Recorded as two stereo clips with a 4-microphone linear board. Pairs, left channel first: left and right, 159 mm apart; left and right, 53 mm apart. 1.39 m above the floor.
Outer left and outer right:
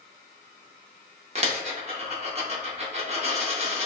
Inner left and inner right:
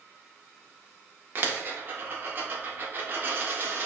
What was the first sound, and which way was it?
A dropped coin, 40° right (ahead or behind).